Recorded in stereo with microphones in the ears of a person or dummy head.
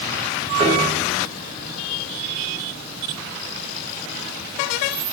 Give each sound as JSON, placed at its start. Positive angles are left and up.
{"t": 0.6, "sound": "a piano", "side_deg": -35, "distance_m": 5.0}